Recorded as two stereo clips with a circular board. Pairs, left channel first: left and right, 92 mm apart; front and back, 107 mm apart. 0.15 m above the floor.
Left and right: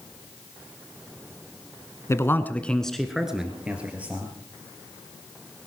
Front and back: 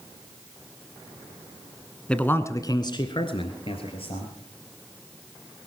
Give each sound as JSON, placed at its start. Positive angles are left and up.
{"t": 2.1, "sound": "a man speaking", "azimuth_deg": 75, "distance_m": 1.1}